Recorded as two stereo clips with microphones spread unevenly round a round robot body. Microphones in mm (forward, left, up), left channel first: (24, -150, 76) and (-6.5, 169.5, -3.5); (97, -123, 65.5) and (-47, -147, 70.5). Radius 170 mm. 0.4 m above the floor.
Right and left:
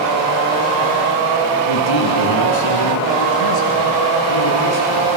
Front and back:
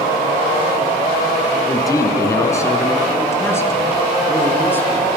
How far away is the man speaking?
About 4.5 m.